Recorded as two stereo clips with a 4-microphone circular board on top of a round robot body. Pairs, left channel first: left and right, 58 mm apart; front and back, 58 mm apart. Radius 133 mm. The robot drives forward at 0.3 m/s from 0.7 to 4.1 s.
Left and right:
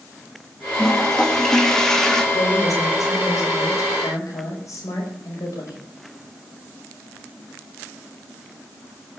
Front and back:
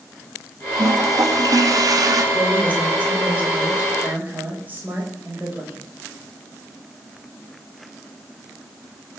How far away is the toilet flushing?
About 1.9 m.